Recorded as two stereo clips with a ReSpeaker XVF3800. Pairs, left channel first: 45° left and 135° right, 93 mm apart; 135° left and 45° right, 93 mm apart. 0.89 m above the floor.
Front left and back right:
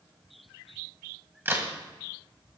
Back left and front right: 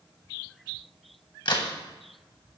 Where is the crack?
160° left, 1.9 m.